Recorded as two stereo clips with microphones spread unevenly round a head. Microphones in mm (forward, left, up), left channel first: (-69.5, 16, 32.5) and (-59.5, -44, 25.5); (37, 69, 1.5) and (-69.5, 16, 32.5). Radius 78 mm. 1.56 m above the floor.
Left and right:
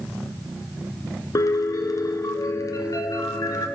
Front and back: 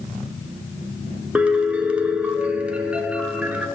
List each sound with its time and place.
1.4 s a piano: 125° left, 0.7 m